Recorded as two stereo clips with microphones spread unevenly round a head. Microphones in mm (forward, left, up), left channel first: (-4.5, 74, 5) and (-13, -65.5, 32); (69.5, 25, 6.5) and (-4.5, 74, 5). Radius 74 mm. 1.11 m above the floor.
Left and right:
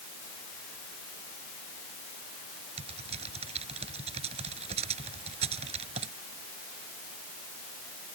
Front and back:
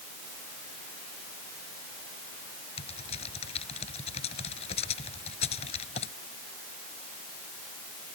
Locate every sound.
2.8 s typing on a keyboard: 45° right